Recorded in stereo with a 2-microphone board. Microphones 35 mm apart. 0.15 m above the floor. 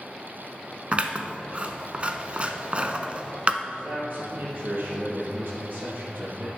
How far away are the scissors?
About 0.8 m.